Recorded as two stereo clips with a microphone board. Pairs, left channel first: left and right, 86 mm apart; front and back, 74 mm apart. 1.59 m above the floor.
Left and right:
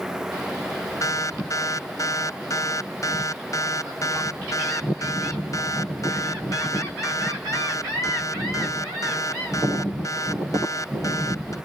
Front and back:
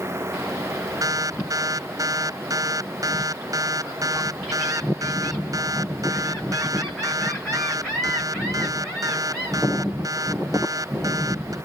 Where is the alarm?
140° left.